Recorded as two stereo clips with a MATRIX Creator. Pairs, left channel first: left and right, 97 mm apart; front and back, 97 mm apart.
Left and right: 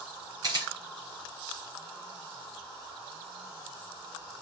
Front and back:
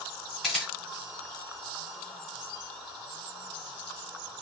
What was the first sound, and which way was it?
A camera shutter, 85° right.